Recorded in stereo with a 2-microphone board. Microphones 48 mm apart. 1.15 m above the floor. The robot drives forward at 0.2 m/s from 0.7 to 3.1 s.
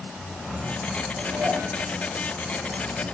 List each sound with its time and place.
1.2 s dishes clattering: 55° right (ahead or behind), 9.5 m